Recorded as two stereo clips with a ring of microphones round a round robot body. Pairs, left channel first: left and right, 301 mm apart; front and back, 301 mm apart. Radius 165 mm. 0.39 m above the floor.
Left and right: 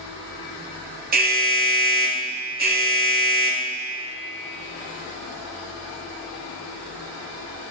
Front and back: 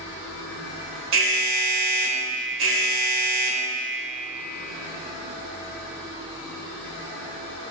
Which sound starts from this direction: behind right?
An alarm, at 1.1 s.